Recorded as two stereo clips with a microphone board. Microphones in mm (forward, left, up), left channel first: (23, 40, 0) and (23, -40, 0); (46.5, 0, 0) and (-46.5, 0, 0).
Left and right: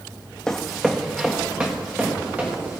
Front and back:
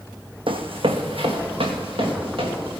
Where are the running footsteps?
170° left, 1.0 m; by 2.8 s 160° right, 4 m.